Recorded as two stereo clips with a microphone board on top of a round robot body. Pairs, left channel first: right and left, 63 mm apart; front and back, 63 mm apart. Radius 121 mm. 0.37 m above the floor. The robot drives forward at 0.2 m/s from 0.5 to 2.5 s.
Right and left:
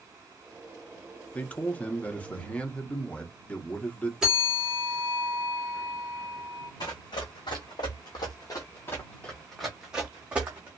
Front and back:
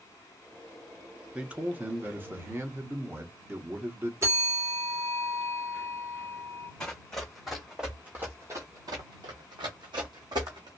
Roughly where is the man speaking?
Behind right.